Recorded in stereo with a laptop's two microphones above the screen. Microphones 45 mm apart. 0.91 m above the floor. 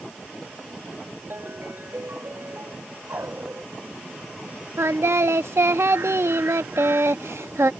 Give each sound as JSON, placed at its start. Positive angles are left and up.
{"t": 1.3, "sound": "a ringtone", "side_deg": -55}
{"t": 3.1, "sound": "a dog barking", "side_deg": -60}
{"t": 4.8, "sound": "singing", "side_deg": -80}